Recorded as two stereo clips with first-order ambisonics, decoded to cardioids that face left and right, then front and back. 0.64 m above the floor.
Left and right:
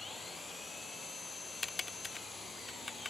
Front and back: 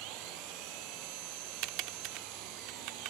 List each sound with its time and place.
0.0 s an engine running: 170° left
1.6 s typing on a keyboard: 165° left